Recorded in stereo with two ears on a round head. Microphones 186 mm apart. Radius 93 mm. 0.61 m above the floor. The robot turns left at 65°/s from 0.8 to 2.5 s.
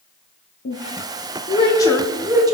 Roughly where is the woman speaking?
Left.